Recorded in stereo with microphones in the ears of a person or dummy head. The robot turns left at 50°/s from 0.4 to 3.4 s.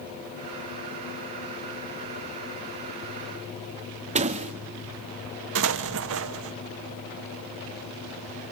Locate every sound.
4.2 s a door slam: 35° right (ahead or behind), 1.6 m
5.5 s an explosion: 65° right (ahead or behind), 1.0 m